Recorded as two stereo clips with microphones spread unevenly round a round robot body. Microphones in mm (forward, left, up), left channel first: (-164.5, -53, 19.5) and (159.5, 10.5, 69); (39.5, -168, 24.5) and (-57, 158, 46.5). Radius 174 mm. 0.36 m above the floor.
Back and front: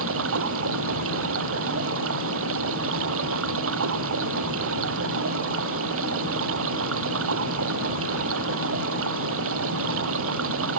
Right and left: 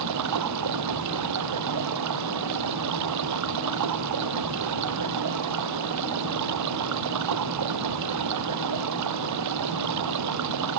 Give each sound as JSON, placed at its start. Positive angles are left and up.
{"t": 0.0, "sound": "running water", "azimuth_deg": 65}